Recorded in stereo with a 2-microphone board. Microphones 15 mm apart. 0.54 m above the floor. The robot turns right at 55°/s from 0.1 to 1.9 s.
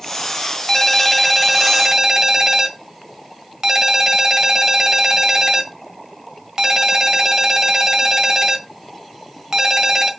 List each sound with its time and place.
0.7 s a ringtone: 150° left, 1.8 m; by 10.1 s 140° right, 1.8 m